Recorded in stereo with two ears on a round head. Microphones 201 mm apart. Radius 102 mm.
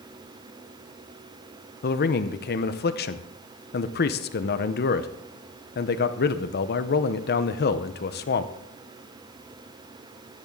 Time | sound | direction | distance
1.8 | a man speaking | 45° left (ahead or behind) | 0.7 m